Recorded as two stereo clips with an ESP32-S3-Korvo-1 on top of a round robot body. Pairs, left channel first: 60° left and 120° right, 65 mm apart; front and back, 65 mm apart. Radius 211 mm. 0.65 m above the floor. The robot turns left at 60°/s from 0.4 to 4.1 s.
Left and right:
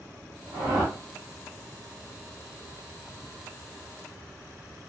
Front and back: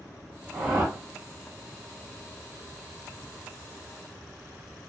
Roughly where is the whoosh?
Right.